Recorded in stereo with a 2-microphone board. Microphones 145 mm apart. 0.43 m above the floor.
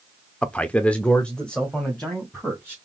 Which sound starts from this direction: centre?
A man speaking, at 0.4 s.